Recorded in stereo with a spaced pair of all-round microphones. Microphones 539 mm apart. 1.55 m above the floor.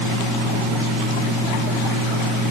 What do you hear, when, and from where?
Only background noise.